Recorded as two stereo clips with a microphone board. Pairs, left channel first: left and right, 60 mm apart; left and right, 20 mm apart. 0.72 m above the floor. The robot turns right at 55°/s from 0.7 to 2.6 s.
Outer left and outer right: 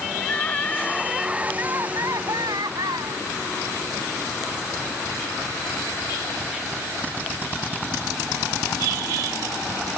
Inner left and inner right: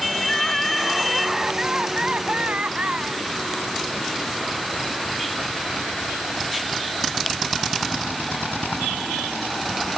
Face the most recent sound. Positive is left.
turn(degrees=-95)